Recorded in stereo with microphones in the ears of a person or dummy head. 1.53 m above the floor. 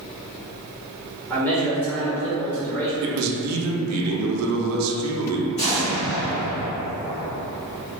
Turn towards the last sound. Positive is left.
turn(degrees=30)  # may be behind; listen again after turning